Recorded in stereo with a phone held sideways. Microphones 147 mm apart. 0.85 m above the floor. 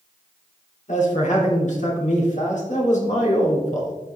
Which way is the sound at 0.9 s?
55° left (ahead or behind).